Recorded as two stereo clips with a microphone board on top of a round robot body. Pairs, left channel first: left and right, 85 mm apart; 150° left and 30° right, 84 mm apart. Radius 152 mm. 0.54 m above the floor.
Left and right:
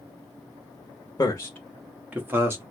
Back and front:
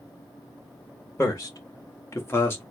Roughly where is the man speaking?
Left.